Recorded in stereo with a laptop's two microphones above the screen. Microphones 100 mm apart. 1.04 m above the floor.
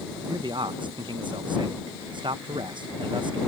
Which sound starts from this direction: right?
A man speaking, at 0.3 s.